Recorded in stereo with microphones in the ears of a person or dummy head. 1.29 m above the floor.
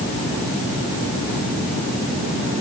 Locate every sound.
Only background noise.